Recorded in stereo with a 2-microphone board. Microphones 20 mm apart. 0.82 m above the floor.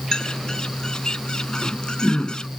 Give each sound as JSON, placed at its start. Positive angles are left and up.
{"t": 0.1, "sound": "a bird", "side_deg": 40}